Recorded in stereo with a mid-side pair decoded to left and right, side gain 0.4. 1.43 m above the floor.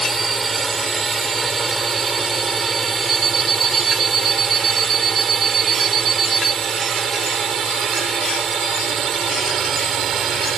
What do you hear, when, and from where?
0.0 s a drone: 30° right; by 10.6 s 65° right
3.1 s an alarm clock: 55° right